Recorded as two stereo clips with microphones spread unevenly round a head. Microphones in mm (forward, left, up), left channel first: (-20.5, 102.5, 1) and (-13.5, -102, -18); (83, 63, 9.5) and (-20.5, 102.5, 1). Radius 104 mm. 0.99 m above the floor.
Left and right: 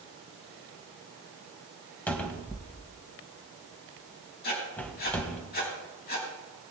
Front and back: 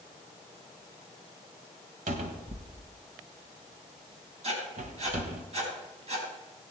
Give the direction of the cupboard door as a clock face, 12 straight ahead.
6 o'clock.